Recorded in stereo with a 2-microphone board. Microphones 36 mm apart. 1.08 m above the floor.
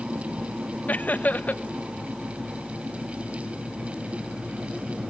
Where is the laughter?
50° left (ahead or behind), 0.9 m.